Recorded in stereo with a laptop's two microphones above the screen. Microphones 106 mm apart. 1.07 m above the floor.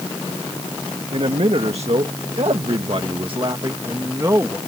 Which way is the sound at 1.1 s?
65° right (ahead or behind).